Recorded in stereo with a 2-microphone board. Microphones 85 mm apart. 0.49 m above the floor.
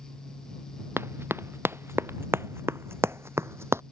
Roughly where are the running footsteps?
Right.